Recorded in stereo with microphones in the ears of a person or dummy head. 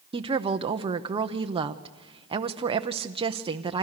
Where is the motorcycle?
I don't hear a motorcycle.